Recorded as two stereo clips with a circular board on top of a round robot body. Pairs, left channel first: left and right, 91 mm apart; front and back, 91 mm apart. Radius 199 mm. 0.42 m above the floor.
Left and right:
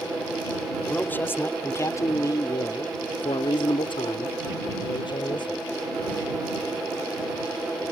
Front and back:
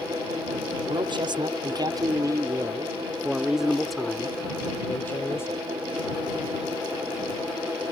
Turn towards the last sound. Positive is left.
turn(degrees=60)